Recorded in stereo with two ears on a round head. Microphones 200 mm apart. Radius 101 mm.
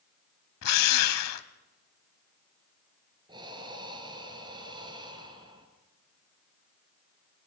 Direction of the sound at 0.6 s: 80° left.